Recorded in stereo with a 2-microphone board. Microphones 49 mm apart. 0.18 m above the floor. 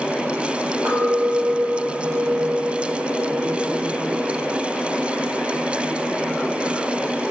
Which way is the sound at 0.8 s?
80° right.